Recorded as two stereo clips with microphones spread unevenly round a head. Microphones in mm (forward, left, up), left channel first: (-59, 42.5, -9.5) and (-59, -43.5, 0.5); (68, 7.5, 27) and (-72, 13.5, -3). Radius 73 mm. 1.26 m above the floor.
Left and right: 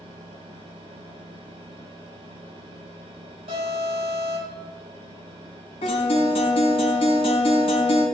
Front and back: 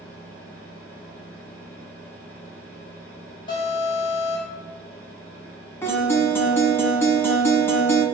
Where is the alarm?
65° right, 5 m.